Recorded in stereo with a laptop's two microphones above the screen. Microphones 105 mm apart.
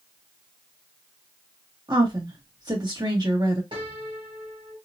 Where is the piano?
50° right (ahead or behind), 1.4 m.